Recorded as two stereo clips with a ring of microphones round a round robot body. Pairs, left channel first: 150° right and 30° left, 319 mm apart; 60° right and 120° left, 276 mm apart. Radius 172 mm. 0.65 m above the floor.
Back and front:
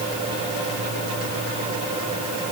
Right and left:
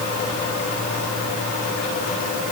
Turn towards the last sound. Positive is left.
No sound to turn to.